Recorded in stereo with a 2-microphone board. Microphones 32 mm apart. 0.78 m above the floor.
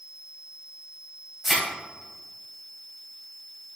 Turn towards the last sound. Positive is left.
turn(degrees=-15)  # may be behind; listen again after turning